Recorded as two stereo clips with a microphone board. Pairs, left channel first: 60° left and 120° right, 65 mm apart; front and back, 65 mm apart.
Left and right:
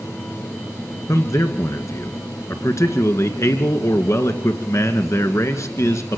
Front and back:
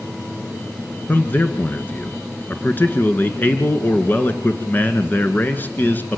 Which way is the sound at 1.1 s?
50° left.